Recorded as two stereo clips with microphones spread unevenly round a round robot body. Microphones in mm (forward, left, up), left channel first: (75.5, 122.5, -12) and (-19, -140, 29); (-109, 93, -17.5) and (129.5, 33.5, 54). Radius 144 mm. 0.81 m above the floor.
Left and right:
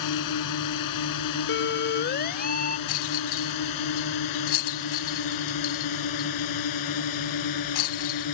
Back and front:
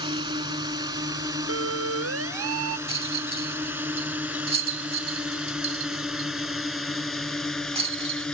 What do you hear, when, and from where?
0.0 s a drone: 55° left; by 8.3 s 80° left
1.5 s a siren: 20° left; by 2.8 s 5° left
2.9 s a rattle: 55° left